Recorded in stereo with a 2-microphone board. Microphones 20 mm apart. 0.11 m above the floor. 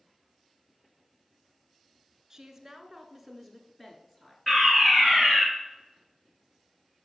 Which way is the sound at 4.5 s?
15° left (ahead or behind).